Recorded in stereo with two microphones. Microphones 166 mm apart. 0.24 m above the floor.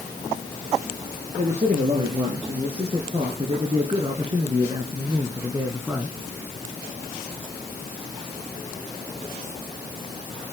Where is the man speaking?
45° right (ahead or behind), 4 m; by 6.2 s 15° right (ahead or behind), 2 m.